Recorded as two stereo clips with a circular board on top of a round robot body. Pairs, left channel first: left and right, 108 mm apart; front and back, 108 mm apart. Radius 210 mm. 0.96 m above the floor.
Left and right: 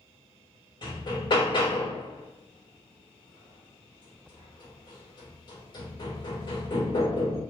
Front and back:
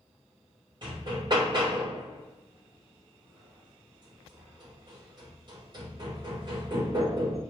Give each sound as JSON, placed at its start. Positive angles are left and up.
{"t": 0.8, "sound": "hammering", "azimuth_deg": 135, "distance_m": 4.5}